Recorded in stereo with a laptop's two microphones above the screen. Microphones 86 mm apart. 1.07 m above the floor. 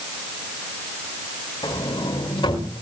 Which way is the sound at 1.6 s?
70° left (ahead or behind).